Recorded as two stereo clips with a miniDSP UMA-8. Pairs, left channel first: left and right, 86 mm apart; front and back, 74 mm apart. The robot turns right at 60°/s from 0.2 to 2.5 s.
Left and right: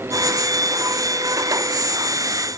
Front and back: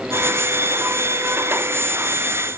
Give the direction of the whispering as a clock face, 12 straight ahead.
No whispering in this recording.